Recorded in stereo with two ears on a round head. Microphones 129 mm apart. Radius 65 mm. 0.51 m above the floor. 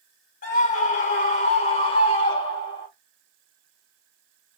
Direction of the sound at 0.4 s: 60° left (ahead or behind).